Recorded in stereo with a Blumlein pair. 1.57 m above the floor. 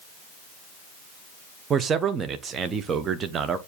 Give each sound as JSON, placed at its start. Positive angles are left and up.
{"t": 1.7, "sound": "a man speaking", "azimuth_deg": -20, "distance_m": 0.7}